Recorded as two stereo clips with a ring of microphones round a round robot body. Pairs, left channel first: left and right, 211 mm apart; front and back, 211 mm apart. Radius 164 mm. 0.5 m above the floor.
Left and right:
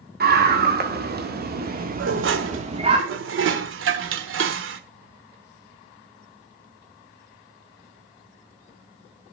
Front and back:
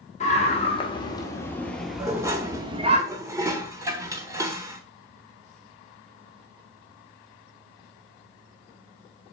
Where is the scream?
55° right, 2.5 m; by 3.0 s 140° right, 1.6 m.